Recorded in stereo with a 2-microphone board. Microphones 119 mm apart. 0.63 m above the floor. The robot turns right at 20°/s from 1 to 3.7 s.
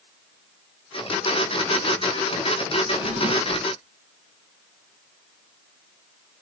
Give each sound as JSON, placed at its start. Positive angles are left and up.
{"t": 2.8, "sound": "a drawer", "side_deg": -90, "distance_m": 5.5}